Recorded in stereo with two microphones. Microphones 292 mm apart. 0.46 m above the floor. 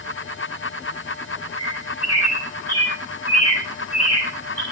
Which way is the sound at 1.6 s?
55° left (ahead or behind).